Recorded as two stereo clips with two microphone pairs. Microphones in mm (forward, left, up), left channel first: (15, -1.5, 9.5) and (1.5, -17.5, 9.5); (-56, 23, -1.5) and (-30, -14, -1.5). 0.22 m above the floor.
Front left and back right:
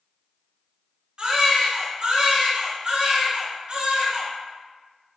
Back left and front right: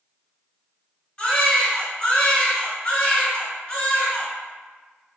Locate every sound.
1.2 s a baby crying: 170° right, 1.4 m